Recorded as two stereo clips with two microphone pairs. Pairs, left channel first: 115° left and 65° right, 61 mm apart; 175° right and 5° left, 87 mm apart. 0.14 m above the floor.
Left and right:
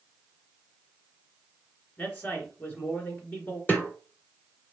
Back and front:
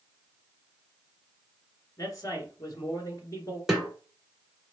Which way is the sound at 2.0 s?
160° left.